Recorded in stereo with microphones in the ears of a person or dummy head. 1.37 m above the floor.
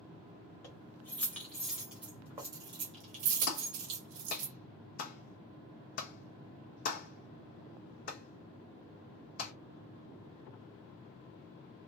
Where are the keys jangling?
10° left (ahead or behind), 1.6 m; by 4.5 s 60° right (ahead or behind), 1.2 m.